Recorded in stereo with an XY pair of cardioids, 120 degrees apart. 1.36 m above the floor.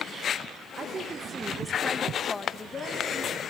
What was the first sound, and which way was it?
A woman speaking, 45° right.